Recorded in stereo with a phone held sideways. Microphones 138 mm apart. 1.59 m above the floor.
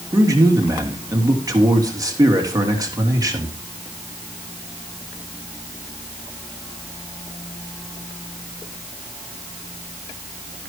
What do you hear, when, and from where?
0.1 s a man speaking: 25° right (ahead or behind), 3 m